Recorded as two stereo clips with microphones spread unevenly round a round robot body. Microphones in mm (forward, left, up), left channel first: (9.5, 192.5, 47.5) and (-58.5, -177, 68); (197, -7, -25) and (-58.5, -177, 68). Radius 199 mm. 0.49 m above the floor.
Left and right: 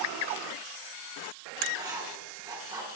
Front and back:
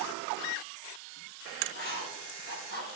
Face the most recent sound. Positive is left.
turn(degrees=-20)